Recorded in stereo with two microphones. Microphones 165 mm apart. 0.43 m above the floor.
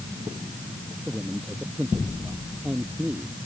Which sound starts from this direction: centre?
A man speaking, at 1.1 s.